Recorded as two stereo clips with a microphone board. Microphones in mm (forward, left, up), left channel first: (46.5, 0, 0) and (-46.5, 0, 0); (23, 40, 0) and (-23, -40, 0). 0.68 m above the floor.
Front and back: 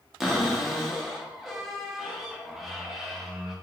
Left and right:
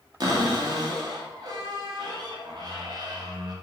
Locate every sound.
0.2 s a cupboard door: 95° right, 0.6 m